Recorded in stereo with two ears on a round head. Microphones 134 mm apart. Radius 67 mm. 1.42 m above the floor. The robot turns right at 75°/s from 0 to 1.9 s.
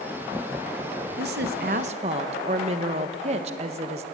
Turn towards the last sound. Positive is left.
turn(degrees=-45)